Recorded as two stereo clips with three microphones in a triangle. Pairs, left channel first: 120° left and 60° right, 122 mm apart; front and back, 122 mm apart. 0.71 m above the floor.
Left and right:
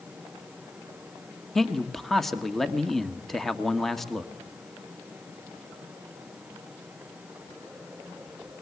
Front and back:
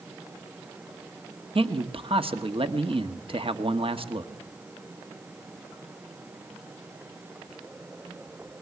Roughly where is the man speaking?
Behind right.